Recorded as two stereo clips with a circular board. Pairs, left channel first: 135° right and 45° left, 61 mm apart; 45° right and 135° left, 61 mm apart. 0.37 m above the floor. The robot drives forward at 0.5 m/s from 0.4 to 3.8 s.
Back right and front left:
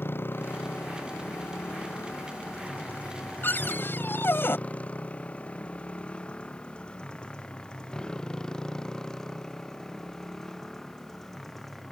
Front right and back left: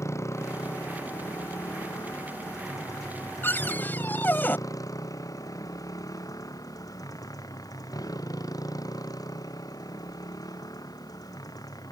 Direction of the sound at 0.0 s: 85° right.